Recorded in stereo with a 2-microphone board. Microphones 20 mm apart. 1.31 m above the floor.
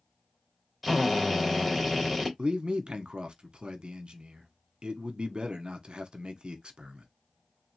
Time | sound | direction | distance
0.8 | a drill | 5° left (ahead or behind) | 2.5 m
2.4 | a man speaking | 65° right (ahead or behind) | 1.2 m